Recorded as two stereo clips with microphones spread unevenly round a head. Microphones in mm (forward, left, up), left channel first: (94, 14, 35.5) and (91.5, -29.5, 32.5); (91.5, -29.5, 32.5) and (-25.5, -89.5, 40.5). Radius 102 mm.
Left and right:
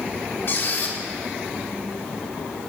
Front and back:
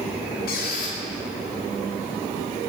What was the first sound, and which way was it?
A squeak, 50° left.